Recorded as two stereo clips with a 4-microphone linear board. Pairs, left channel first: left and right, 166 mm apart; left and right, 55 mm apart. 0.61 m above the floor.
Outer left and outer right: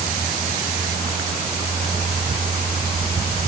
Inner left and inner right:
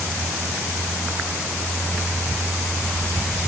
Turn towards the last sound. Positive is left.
No sound to turn to.